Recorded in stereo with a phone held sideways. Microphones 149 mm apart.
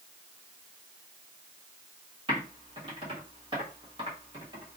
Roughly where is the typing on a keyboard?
Right.